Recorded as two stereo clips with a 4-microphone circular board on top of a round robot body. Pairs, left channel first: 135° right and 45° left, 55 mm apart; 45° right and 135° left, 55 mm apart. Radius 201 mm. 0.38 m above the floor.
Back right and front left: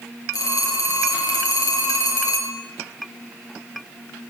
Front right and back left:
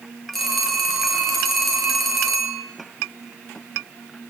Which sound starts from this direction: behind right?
A phone ringing, at 0.3 s.